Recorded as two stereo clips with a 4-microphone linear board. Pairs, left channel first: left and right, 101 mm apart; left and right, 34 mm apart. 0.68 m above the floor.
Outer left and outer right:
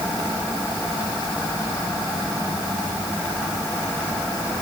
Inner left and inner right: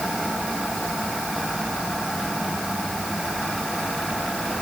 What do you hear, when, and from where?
Only background noise.